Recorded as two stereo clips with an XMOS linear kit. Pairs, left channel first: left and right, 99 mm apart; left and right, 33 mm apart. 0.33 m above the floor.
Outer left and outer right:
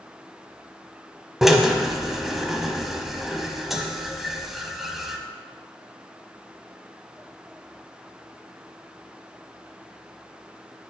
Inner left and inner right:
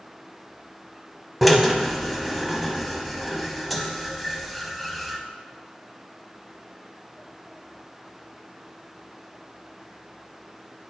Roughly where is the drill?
Centre.